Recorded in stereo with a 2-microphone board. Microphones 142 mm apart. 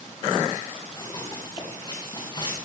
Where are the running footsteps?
25° left (ahead or behind), 6.5 m; by 2.5 s 30° left (ahead or behind), 6 m.